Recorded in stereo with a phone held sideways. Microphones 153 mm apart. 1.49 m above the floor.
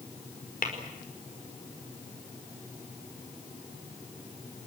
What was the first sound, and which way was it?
Tapping, 70° left (ahead or behind).